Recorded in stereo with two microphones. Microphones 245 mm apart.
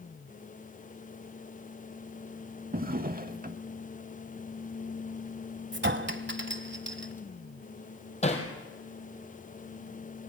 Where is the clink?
50° right (ahead or behind), 1.1 m.